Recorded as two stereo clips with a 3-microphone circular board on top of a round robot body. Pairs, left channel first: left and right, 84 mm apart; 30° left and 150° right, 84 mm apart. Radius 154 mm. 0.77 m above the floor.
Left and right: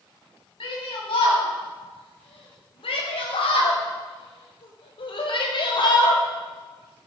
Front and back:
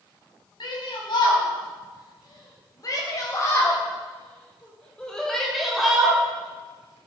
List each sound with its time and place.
0.6 s a shout: 65° left, 5.5 m; by 6.2 s 130° left, 3 m